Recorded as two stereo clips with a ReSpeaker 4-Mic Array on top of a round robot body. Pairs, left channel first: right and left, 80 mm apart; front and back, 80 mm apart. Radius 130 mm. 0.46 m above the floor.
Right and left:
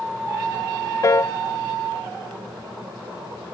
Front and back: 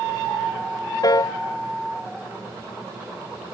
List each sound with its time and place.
1.0 s a piano: 40° right